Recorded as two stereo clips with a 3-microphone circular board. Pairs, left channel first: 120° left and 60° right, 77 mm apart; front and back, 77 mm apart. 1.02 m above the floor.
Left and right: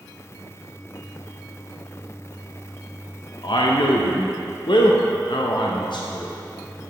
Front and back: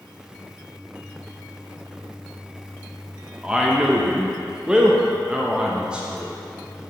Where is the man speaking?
100° left, 0.6 m.